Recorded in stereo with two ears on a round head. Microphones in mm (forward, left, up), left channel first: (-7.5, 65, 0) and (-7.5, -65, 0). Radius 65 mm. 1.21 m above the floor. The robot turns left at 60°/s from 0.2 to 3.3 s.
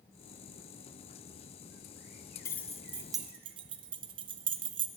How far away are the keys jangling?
About 0.5 m.